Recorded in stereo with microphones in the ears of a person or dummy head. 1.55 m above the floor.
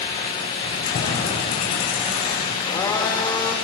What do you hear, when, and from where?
0.6 s keys jangling: 50° left (ahead or behind), 5 m; by 2.5 s 45° left (ahead or behind), 6 m
2.6 s a blender: 20° left (ahead or behind), 2 m